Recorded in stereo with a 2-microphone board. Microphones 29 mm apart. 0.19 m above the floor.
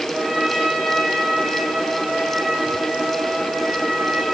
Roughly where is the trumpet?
Right.